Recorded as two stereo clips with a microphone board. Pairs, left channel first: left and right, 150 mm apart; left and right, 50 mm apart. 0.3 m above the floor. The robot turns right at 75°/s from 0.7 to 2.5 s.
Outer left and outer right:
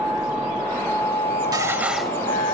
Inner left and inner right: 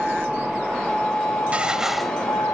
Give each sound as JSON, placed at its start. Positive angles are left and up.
{"t": 0.0, "sound": "a vehicle", "azimuth_deg": -5}
{"t": 1.5, "sound": "dishes clattering", "azimuth_deg": -35}